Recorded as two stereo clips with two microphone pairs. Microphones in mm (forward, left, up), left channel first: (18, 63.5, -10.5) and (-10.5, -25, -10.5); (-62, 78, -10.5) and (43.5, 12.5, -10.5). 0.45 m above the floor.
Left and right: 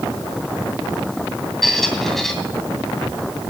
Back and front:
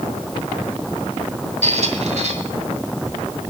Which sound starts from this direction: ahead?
A squeak, at 1.6 s.